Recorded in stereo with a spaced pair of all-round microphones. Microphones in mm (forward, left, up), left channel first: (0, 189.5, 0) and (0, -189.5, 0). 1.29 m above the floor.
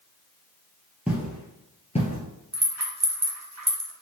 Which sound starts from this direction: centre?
Footsteps, at 1.1 s.